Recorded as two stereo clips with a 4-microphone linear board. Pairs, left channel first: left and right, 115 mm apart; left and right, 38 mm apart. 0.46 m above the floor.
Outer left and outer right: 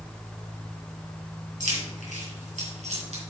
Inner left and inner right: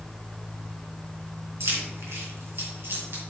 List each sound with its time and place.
1.6 s keys jangling: 80° right, 3 m; by 3.2 s 55° right (ahead or behind), 3.5 m